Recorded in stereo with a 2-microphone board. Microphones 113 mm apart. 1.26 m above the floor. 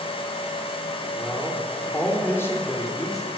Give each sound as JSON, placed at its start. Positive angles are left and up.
{"t": 1.1, "sound": "a man speaking", "side_deg": 0, "distance_m": 4.5}